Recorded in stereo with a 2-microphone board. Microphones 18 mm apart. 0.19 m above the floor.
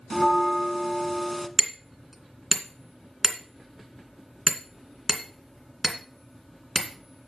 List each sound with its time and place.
0.1 s a bell: 15° left (ahead or behind), 1.0 m
1.6 s hammering: 15° right (ahead or behind), 2.0 m